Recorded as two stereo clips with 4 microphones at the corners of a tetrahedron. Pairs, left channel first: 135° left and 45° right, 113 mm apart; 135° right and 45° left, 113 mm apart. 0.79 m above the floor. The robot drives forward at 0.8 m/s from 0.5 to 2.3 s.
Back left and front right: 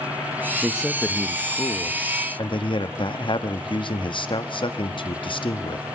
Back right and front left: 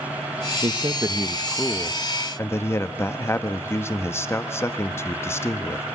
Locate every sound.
0.6 s a man speaking: 30° left, 0.8 m; by 5.8 s 160° left, 1.1 m